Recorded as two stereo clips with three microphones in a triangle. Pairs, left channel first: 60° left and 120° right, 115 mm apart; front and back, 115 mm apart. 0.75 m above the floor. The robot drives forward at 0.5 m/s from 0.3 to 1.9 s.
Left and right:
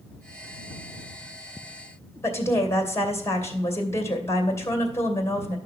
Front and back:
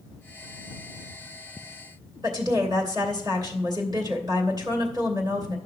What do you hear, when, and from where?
2.2 s a woman speaking: 125° left, 2.5 m